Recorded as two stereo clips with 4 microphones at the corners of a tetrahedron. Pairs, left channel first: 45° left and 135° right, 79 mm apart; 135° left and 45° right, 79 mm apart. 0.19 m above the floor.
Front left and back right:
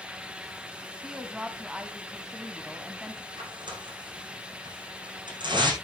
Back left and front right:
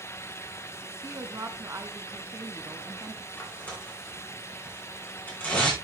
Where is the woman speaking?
60° right, 1.3 m.